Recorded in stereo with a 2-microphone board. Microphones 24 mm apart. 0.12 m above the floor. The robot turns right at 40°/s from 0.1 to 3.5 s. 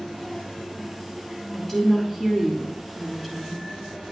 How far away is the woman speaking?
About 1.3 m.